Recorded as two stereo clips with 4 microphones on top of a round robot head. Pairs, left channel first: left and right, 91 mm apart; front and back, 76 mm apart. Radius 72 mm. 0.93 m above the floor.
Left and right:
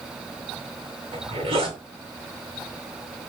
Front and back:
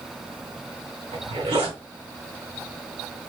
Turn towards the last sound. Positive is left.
turn(degrees=-140)